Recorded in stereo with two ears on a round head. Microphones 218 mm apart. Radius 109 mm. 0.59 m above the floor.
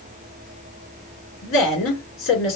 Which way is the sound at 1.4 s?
55° left (ahead or behind).